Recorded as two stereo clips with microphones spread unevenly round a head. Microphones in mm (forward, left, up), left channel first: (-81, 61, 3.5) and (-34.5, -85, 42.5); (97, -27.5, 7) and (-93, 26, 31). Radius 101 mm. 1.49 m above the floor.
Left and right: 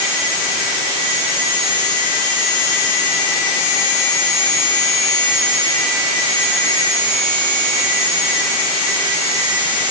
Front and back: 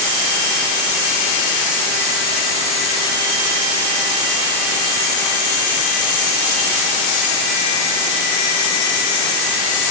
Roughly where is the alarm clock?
I don't hear an alarm clock.